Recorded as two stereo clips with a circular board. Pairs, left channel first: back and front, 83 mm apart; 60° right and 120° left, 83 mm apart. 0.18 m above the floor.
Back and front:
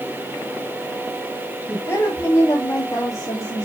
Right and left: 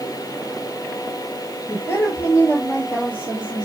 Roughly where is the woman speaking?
Behind right.